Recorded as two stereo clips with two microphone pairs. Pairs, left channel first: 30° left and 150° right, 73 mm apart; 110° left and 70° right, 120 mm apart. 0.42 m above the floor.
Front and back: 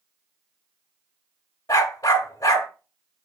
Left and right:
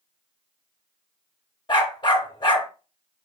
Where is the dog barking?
60° left, 0.6 m.